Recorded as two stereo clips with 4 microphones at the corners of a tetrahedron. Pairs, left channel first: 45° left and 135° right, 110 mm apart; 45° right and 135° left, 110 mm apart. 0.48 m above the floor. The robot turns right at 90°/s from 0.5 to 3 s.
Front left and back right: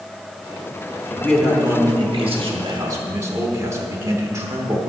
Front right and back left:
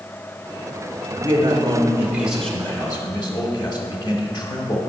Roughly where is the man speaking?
Left.